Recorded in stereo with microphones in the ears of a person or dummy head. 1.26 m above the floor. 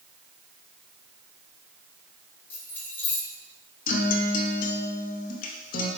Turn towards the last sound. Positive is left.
turn(degrees=45)  # may be behind; listen again after turning